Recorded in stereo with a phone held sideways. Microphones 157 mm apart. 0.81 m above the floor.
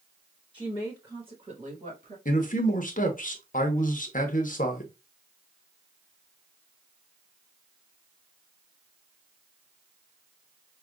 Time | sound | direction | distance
0.5 | a woman speaking | 10° left (ahead or behind) | 1.3 m
2.2 | a man speaking | 60° left (ahead or behind) | 0.8 m